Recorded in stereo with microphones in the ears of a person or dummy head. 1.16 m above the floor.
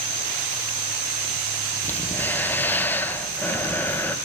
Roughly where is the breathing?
Centre.